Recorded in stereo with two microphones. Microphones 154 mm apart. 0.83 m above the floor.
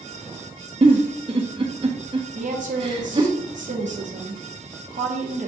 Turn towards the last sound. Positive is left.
turn(degrees=-55)  # may be behind; listen again after turning